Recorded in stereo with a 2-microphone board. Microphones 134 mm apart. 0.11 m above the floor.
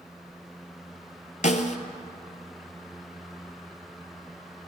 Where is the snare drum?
60° left (ahead or behind), 0.6 m.